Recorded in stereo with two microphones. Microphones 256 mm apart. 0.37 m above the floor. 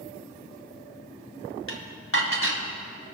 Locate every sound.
1.7 s dishes clattering: 55° left (ahead or behind), 1.7 m